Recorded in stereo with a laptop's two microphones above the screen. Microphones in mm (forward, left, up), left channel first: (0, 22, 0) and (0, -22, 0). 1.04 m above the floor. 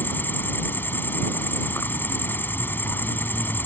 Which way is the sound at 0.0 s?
55° left (ahead or behind).